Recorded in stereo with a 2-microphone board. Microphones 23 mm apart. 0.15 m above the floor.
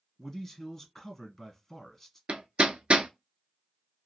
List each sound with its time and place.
0.2 s a man speaking: 20° left (ahead or behind), 1.8 m
2.3 s hammering: 60° right (ahead or behind), 0.5 m